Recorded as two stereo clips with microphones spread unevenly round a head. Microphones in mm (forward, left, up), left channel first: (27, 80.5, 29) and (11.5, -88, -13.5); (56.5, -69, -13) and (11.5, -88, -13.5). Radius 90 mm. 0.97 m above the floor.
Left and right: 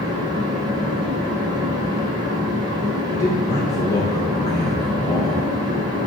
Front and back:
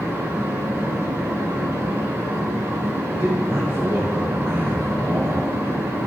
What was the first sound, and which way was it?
A fan, 150° right.